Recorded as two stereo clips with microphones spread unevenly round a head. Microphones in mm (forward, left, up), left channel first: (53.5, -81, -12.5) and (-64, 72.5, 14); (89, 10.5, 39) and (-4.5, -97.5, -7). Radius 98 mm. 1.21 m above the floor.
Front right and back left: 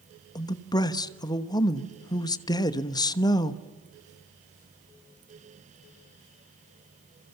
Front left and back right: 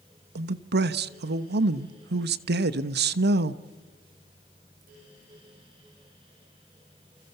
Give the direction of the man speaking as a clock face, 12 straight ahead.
4 o'clock.